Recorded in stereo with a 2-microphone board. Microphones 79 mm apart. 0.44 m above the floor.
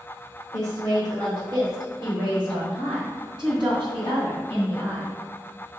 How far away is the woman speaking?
About 1.5 m.